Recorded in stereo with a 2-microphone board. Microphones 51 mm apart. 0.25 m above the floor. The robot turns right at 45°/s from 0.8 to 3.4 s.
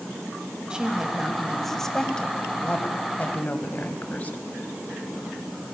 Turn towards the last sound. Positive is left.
turn(degrees=85)